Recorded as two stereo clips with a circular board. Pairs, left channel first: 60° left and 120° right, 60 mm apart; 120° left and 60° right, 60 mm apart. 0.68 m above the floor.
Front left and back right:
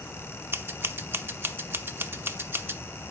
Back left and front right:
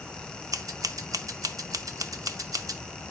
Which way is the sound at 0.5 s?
70° right.